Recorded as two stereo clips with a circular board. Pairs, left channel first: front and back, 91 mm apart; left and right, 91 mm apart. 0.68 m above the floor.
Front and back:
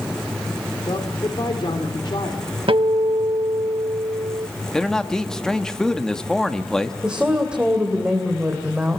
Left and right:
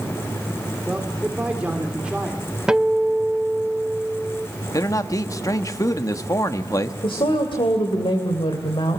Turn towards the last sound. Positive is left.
turn(degrees=100)